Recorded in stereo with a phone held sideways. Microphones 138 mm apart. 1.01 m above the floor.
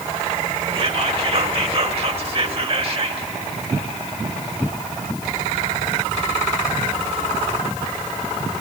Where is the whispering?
45° right (ahead or behind), 2.0 m.